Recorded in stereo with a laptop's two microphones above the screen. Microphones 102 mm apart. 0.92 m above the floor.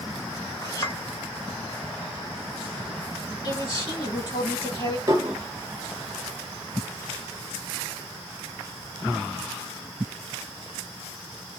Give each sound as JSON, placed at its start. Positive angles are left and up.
{"t": 0.6, "sound": "a clink", "side_deg": 35, "distance_m": 2.0}
{"t": 3.4, "sound": "a man speaking", "side_deg": 40, "distance_m": 2.5}
{"t": 5.1, "sound": "dishes clattering", "side_deg": -35, "distance_m": 1.0}